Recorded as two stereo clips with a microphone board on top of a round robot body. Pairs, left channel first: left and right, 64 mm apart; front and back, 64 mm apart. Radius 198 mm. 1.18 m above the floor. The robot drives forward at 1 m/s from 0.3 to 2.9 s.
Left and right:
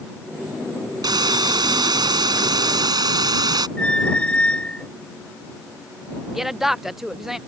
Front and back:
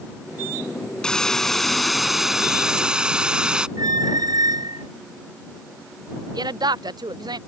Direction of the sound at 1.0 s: 80° right.